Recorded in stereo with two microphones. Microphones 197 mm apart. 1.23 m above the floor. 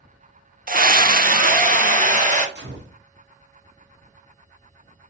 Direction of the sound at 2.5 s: 60° right (ahead or behind).